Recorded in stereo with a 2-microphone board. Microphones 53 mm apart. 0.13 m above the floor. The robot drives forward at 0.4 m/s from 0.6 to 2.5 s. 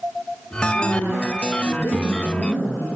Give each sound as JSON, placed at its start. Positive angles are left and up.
{"t": 0.7, "sound": "a woman speaking", "side_deg": 70, "distance_m": 4.5}